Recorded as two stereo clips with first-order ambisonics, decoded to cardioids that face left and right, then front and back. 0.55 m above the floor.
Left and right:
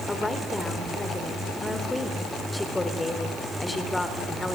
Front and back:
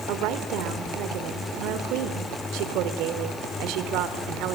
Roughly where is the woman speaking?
Behind.